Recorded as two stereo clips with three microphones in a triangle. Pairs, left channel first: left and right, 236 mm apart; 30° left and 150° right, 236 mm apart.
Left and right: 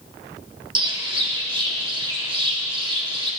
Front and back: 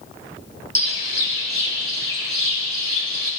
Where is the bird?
155° right, 2 m.